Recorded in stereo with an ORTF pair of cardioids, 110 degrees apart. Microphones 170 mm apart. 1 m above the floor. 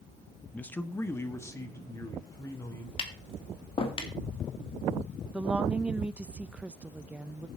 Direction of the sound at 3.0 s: 35° left.